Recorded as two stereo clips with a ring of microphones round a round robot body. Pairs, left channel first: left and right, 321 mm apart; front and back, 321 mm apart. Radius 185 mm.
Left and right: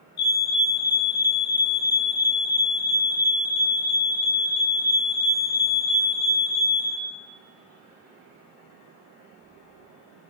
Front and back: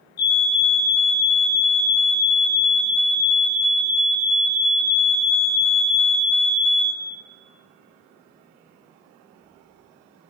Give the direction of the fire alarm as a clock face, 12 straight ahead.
11 o'clock.